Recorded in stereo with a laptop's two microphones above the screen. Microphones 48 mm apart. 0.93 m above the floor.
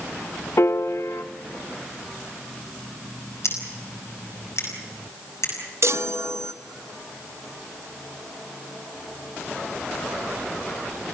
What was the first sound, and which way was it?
A piano, 65° left (ahead or behind).